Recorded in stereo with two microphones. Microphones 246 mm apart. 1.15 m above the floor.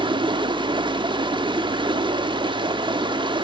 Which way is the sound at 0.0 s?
20° right (ahead or behind).